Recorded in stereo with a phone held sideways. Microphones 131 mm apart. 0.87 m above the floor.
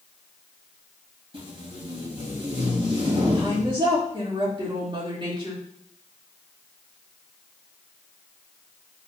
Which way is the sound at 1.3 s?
45° right (ahead or behind).